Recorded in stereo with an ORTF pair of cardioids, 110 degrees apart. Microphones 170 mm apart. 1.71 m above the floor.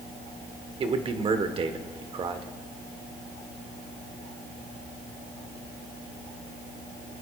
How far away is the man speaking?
About 1.4 m.